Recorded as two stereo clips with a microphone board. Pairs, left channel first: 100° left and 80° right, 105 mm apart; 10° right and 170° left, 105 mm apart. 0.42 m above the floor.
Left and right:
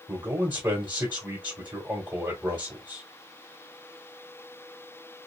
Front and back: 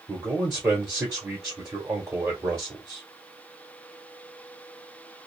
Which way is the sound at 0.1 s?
135° right.